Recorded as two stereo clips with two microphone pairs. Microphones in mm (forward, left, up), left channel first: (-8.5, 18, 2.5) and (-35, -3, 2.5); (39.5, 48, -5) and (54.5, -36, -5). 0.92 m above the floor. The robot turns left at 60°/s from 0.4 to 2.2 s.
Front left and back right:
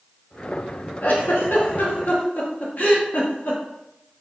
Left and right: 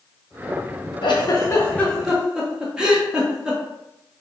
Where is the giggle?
70° left, 0.6 m; by 3.6 s straight ahead, 0.6 m.